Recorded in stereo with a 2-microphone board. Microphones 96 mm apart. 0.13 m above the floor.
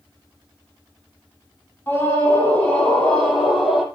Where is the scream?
20° left (ahead or behind), 5 m; by 3.9 s centre (ahead or behind), 4 m.